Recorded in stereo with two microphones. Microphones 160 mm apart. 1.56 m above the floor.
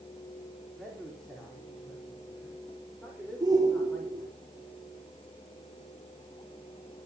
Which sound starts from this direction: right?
A shout, at 3.4 s.